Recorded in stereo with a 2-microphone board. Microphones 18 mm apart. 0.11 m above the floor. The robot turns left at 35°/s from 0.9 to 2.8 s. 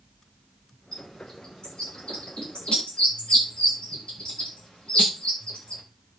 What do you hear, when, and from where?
0.9 s a bird: 20° left (ahead or behind), 9 m; by 5.8 s 85° left, 9 m